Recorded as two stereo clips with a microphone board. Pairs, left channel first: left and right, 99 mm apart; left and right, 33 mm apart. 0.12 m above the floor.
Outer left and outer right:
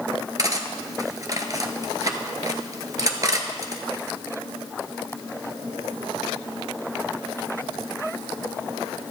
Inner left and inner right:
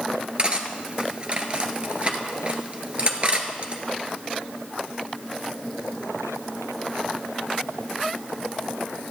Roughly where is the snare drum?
No snare drum in this recording.